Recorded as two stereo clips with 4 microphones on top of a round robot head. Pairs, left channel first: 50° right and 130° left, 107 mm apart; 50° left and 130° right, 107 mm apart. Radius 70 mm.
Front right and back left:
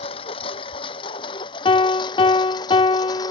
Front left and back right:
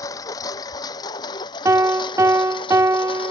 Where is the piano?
70° right.